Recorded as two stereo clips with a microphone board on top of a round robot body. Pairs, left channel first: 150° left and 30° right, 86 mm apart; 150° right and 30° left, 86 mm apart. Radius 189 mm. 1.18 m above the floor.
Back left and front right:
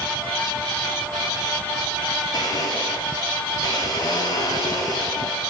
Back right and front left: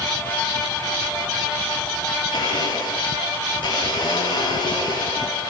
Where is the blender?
175° right, 9 m.